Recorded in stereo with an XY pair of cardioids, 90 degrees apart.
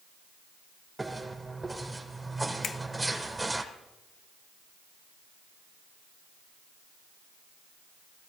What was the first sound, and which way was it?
Footsteps, 20° right.